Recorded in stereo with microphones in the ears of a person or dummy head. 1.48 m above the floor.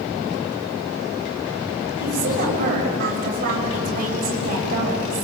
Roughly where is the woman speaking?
Right.